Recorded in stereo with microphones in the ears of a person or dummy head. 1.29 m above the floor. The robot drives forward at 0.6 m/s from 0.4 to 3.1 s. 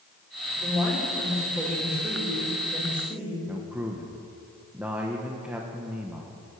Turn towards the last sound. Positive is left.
turn(degrees=-5)  # may be behind; listen again after turning